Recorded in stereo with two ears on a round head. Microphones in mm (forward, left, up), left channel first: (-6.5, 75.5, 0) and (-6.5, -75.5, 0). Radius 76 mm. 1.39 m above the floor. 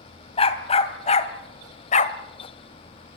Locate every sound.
0.4 s a dog barking: 35° left (ahead or behind), 2.5 m; by 2.2 s 45° left (ahead or behind), 1.6 m